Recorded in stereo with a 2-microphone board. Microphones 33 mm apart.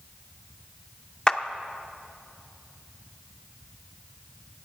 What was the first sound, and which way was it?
A clap, 25° left (ahead or behind).